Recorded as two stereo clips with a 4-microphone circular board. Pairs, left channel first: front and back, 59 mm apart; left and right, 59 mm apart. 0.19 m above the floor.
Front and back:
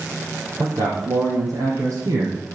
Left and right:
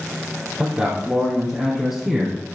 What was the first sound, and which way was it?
A man speaking, 165° right.